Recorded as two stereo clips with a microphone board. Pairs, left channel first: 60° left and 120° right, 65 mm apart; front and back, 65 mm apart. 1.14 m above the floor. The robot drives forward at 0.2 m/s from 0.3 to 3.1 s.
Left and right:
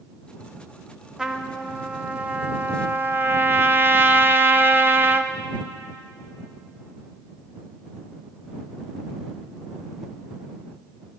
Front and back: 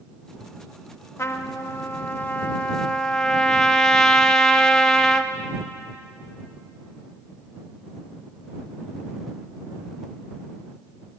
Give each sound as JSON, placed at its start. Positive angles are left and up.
{"t": 1.2, "sound": "a trumpet", "azimuth_deg": -40, "distance_m": 0.7}